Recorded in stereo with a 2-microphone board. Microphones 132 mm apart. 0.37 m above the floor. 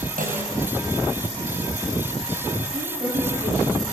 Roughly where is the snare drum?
Right.